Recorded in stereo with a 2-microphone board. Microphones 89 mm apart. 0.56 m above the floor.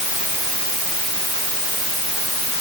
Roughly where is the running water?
No running water in this recording.